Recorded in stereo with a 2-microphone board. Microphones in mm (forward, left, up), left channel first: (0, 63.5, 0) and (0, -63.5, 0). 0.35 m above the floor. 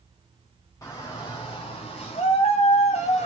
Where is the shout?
25° left (ahead or behind), 1.5 m; by 3.3 s 65° left (ahead or behind), 2 m.